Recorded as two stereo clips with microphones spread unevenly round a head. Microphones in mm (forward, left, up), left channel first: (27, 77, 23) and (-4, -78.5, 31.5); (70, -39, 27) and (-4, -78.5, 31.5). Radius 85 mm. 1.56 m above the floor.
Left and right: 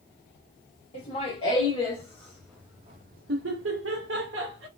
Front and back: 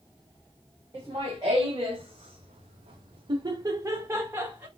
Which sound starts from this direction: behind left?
Laughter, at 0.9 s.